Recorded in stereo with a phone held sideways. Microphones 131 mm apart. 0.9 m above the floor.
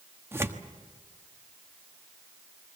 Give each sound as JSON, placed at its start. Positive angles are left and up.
{"t": 0.3, "sound": "tearing paper", "side_deg": -20, "distance_m": 1.2}